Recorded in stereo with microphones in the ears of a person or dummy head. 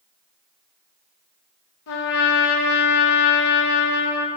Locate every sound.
1.9 s a trumpet: 70° left (ahead or behind), 1.3 m